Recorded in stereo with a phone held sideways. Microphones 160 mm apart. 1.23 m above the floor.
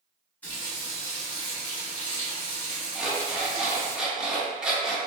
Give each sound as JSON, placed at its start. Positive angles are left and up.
{"t": 0.4, "sound": "a running tap", "side_deg": 10, "distance_m": 1.2}
{"t": 3.0, "sound": "an alarm clock", "side_deg": -5, "distance_m": 0.7}